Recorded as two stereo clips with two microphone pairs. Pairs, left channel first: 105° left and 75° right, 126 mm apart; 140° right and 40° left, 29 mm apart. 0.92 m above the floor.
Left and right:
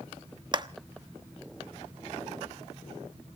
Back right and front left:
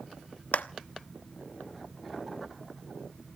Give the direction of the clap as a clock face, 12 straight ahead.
4 o'clock.